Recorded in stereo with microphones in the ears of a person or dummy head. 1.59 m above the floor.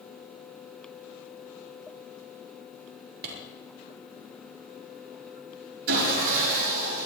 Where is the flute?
I don't hear a flute.